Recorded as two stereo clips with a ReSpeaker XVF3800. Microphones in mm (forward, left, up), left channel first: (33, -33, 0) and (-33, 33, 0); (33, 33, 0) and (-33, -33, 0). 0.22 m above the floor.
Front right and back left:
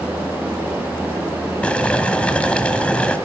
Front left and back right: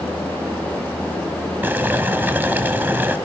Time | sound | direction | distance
1.6 | boiling | 105° right | 1.2 m